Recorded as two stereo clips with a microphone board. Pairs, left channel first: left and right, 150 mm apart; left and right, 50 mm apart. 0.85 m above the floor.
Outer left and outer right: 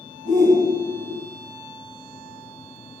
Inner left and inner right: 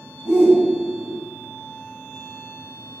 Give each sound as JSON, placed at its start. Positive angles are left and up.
{"t": 0.2, "sound": "a shout", "side_deg": -55, "distance_m": 6.0}